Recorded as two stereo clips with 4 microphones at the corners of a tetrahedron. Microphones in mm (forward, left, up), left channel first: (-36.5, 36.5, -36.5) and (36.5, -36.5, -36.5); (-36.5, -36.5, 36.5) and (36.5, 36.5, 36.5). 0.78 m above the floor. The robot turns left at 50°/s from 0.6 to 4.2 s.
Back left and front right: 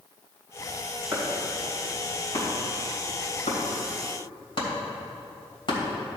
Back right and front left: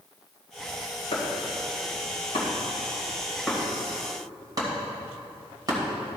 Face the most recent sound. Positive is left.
turn(degrees=95)